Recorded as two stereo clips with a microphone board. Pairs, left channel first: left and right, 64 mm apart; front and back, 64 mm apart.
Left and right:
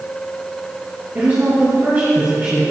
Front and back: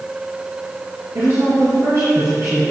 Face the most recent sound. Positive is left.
turn(degrees=-150)